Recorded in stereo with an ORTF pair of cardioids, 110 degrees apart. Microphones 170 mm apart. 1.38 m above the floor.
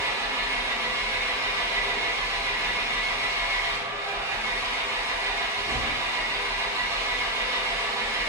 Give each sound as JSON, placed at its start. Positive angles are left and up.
{"t": 0.0, "sound": "an engine running", "azimuth_deg": -15, "distance_m": 0.8}